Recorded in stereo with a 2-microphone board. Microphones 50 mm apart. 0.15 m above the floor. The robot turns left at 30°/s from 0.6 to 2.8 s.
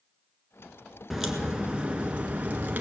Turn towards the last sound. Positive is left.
turn(degrees=-60)